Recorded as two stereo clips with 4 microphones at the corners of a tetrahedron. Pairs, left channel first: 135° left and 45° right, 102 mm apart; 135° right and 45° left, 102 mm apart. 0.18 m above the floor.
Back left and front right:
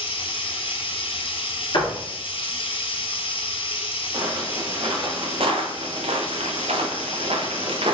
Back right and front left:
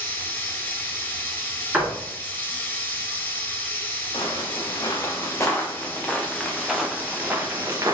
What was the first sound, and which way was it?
Running water, 155° left.